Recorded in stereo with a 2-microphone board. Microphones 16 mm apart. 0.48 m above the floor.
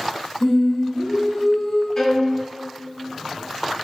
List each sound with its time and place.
0.4 s singing: 60° left (ahead or behind), 1.1 m
2.0 s a violin: 40° left (ahead or behind), 0.7 m